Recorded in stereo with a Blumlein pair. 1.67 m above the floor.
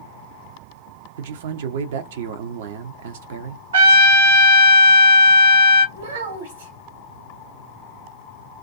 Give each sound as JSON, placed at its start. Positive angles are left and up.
{"t": 1.2, "sound": "a man speaking", "azimuth_deg": -55, "distance_m": 0.6}
{"t": 3.7, "sound": "a trumpet", "azimuth_deg": -65, "distance_m": 1.1}
{"t": 6.0, "sound": "a child speaking", "azimuth_deg": -65, "distance_m": 1.5}